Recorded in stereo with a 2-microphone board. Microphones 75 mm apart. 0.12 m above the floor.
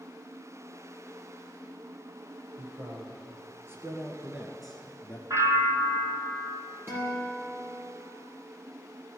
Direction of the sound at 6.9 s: 30° right (ahead or behind).